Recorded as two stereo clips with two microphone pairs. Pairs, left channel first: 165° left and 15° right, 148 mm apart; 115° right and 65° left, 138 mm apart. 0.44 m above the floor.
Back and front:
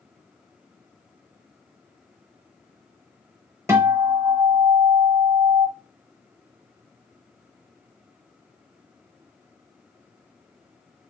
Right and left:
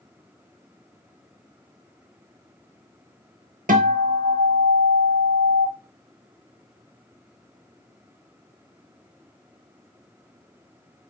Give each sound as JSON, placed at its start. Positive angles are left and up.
{"t": 3.7, "sound": "a guitar", "azimuth_deg": 55, "distance_m": 0.8}